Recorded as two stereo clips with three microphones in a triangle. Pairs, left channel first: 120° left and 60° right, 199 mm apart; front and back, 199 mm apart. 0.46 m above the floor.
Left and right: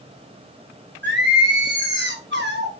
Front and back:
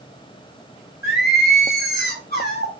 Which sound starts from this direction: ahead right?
Singing, at 1.0 s.